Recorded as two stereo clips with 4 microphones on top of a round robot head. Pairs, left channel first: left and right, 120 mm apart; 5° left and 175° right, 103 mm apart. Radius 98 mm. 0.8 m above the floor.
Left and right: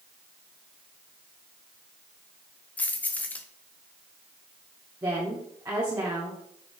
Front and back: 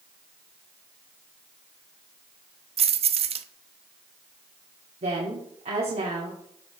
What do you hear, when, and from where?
2.8 s keys jangling: 170° left, 0.6 m
5.0 s a woman speaking: 165° right, 2 m